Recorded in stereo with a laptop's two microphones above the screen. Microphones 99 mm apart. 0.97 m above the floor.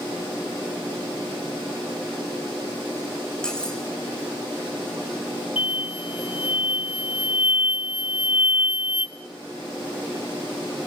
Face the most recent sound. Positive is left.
turn(degrees=70)  # may be behind; listen again after turning